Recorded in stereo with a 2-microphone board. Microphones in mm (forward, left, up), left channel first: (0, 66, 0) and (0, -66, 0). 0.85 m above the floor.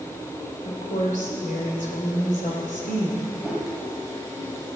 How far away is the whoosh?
About 3.5 m.